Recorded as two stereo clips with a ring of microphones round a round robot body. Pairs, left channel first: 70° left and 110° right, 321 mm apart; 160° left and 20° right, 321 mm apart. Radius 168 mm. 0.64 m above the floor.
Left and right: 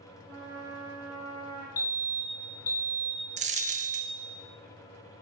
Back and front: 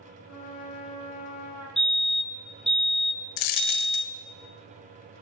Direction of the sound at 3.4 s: Straight behind.